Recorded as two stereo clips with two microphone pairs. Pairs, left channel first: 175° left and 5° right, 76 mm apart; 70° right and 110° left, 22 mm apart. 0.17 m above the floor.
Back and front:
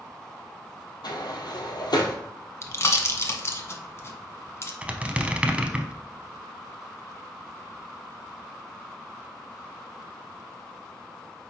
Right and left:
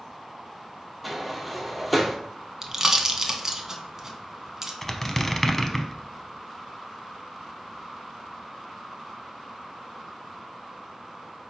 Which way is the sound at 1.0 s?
160° right.